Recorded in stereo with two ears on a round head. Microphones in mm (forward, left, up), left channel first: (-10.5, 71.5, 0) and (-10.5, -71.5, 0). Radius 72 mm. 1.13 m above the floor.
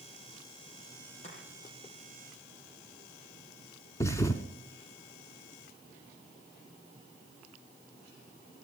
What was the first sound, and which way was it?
Chopping, 45° left (ahead or behind).